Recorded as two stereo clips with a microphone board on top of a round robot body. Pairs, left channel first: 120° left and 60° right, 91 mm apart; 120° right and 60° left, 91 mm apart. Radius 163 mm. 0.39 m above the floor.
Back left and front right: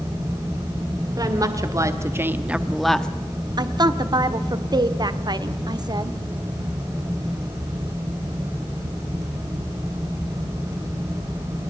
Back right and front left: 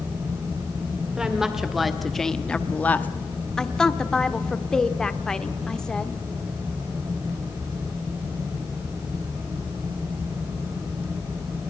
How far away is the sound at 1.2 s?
About 2.5 m.